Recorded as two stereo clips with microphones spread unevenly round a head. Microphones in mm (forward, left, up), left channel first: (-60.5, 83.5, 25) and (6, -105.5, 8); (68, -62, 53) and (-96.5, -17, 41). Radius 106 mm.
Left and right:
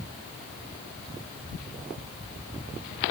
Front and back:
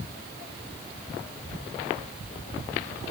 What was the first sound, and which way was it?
Only background noise.